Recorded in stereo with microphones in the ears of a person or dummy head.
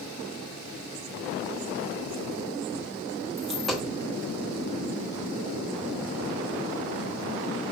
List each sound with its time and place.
3.4 s a dropped coin: centre (ahead or behind), 1.0 m